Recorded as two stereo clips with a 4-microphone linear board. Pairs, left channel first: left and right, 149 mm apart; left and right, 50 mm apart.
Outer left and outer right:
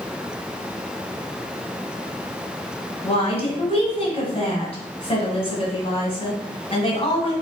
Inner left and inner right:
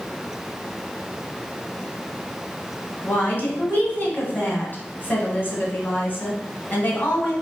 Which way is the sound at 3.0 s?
40° left (ahead or behind).